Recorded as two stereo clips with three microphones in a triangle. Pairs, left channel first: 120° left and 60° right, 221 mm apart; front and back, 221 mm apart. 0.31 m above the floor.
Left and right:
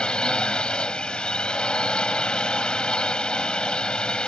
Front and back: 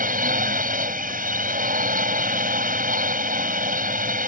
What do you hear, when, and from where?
0.0 s a drone: 155° right